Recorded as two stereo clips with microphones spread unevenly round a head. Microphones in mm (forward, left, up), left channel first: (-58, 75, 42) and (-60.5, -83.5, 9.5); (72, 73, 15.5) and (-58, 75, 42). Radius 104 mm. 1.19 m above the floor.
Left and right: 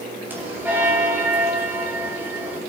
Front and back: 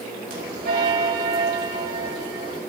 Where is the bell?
170° right, 5 m.